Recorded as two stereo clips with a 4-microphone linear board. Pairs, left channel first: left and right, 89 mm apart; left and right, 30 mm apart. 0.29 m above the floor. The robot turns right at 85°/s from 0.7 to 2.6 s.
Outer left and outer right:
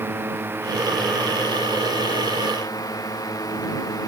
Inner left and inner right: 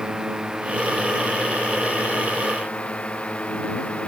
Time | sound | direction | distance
0.0 | a drone | 25° right | ?